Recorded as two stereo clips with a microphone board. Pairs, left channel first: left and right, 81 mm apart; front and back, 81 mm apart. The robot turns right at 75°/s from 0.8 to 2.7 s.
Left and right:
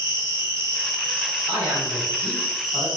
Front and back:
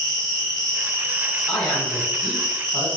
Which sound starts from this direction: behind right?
An insect, at 0.0 s.